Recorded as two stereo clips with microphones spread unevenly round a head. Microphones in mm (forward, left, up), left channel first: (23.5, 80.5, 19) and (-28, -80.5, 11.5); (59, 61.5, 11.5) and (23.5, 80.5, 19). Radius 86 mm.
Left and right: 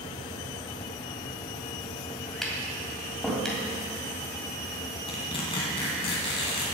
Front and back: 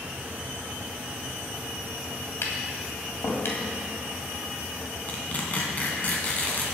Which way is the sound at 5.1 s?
20° left.